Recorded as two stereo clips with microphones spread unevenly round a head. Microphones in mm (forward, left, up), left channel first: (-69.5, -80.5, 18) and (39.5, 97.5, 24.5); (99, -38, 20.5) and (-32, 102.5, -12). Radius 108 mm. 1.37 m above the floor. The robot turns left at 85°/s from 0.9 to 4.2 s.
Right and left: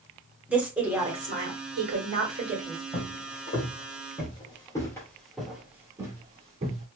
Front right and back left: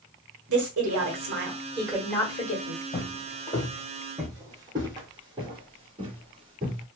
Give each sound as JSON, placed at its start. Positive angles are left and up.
{"t": 0.5, "sound": "a woman speaking", "azimuth_deg": 140, "distance_m": 1.4}
{"t": 2.9, "sound": "footsteps", "azimuth_deg": -30, "distance_m": 1.9}